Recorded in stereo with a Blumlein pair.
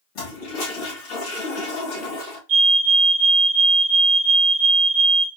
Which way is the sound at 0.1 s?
40° left.